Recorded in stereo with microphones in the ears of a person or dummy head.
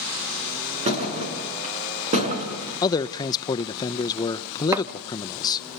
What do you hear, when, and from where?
0.8 s a thud: 35° right (ahead or behind), 6.5 m
2.8 s a man speaking: 25° left (ahead or behind), 0.6 m
4.7 s chopping: 15° right (ahead or behind), 1.0 m